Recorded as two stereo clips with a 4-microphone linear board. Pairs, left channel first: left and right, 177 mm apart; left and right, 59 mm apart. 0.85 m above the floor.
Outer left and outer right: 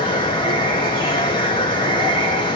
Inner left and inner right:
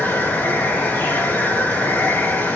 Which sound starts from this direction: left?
Running water, at 0.0 s.